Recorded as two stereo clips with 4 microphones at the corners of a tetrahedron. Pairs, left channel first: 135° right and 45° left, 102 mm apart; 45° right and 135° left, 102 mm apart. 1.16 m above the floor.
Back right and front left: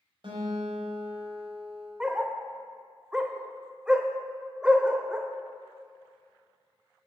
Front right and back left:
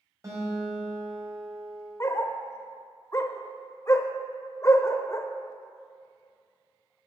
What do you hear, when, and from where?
0.2 s a guitar: 80° left, 5 m
2.0 s a dog barking: 25° right, 0.9 m